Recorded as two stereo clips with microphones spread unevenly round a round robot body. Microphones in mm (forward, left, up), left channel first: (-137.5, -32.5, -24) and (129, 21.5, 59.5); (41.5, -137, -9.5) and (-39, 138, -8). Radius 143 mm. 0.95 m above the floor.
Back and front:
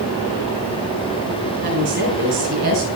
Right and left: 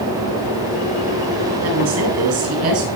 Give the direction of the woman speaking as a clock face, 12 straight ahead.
10 o'clock.